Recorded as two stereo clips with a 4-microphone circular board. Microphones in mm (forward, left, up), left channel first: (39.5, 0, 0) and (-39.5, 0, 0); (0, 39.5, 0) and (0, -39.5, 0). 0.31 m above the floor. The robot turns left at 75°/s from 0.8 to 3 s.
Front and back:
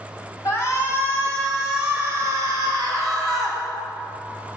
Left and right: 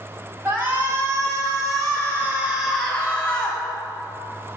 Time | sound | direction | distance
0.5 | a shout | 35° right | 2.5 m